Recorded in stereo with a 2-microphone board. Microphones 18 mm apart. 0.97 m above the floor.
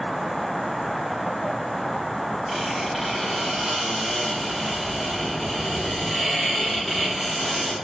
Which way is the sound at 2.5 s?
Centre (ahead or behind).